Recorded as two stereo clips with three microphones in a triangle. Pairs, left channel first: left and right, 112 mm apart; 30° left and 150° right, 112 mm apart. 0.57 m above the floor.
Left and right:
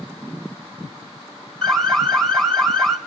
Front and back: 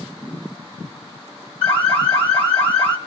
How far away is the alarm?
About 1.7 m.